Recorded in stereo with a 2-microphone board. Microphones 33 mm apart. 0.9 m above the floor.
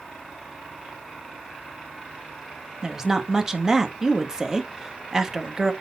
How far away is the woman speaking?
About 1.2 m.